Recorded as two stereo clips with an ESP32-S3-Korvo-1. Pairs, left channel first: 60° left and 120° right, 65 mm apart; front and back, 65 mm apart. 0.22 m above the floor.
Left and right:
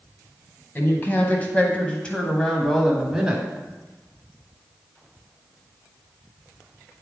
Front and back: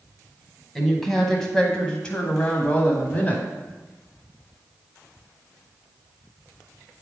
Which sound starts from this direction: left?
A woman speaking, at 0.8 s.